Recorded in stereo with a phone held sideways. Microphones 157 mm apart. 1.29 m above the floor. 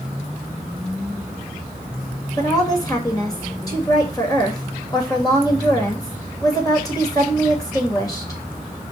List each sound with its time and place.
2.4 s a woman speaking: 20° left (ahead or behind), 2.5 m